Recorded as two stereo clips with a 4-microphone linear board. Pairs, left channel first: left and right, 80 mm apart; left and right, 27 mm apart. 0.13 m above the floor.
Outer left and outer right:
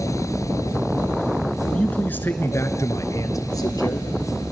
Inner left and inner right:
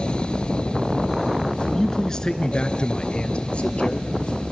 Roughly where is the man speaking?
Centre.